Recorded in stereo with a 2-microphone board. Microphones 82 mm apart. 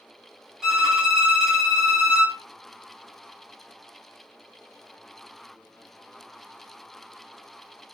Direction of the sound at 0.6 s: 5° right (ahead or behind).